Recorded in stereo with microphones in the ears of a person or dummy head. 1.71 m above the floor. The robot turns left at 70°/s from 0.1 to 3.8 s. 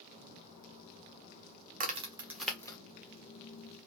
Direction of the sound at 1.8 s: 45° right (ahead or behind).